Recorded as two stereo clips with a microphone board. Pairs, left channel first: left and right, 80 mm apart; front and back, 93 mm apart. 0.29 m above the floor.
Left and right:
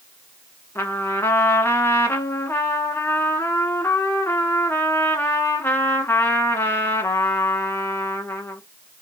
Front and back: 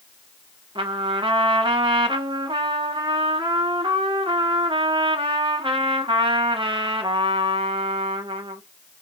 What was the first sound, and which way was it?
A trumpet, 150° left.